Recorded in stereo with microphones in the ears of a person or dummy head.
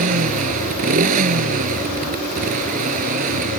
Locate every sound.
0.0 s a motorcycle: 40° right (ahead or behind)